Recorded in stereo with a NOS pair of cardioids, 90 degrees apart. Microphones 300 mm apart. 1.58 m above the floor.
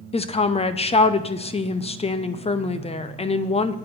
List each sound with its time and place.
0.1 s a woman speaking: 20° left, 0.7 m